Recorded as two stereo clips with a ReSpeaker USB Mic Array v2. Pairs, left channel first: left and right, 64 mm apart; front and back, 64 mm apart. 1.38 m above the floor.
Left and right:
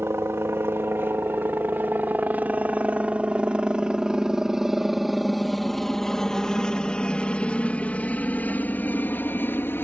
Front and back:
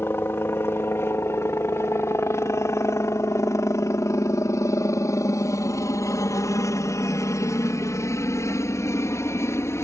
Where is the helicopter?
45° right; by 9.8 s 40° left.